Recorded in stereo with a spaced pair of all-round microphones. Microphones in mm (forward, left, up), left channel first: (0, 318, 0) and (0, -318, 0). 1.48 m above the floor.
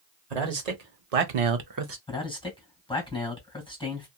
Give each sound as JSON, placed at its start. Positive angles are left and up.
{"t": 0.3, "sound": "a man speaking", "side_deg": -80, "distance_m": 1.2}
{"t": 2.1, "sound": "a man speaking", "side_deg": 10, "distance_m": 1.7}